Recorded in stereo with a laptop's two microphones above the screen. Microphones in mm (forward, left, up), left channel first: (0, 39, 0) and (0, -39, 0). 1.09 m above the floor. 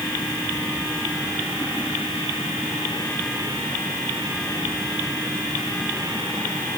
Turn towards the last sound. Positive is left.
No sound to turn to.